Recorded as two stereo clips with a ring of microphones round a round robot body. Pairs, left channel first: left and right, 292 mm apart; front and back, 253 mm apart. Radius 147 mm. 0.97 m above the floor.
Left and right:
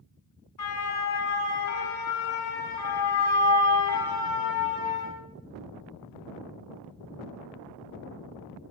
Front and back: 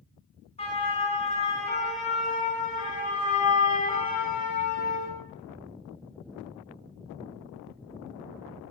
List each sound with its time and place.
0.6 s a siren: 65° left, 10 m; by 5.1 s 50° left, 9.5 m